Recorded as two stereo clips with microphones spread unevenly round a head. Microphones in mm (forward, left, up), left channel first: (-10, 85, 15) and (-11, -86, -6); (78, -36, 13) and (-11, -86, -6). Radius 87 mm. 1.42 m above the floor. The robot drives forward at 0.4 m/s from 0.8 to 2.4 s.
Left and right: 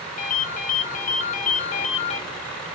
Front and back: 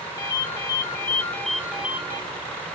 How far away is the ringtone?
About 0.7 m.